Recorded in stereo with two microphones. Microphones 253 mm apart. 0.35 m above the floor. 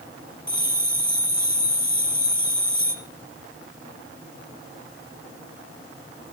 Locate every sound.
0.5 s a bell: 20° left (ahead or behind), 0.9 m